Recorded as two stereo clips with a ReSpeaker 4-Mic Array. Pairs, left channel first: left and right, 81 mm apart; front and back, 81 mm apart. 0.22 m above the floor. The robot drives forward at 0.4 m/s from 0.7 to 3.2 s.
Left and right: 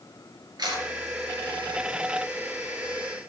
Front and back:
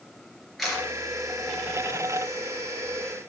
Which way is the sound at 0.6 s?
90° right.